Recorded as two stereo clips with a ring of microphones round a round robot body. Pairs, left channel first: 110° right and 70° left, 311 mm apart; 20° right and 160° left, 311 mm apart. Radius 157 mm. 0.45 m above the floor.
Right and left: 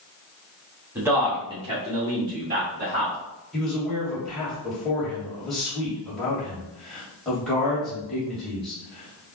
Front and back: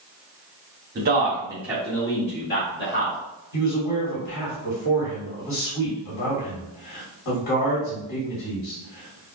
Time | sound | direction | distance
0.9 | a man speaking | 145° left | 1.5 m
3.5 | a man speaking | 25° right | 2 m